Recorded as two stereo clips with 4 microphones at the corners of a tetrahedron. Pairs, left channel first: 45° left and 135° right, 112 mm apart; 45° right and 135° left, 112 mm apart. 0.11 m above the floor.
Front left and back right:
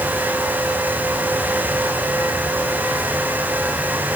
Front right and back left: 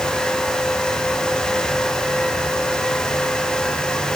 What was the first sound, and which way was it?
Only background noise.